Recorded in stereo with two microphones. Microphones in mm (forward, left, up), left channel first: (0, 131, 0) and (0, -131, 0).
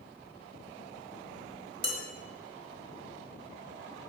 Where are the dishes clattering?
40° right (ahead or behind), 0.7 m.